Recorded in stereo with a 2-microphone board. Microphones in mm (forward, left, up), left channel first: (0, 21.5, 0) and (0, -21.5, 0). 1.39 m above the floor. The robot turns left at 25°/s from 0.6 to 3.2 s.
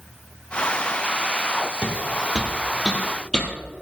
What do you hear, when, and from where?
1.8 s footsteps: 35° right (ahead or behind), 2 m; by 3.5 s 20° left (ahead or behind), 2.5 m